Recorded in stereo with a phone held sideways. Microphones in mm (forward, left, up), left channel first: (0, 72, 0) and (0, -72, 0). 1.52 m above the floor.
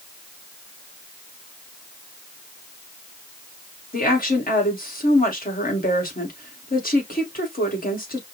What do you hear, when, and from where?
3.9 s a woman speaking: 80° left, 2 m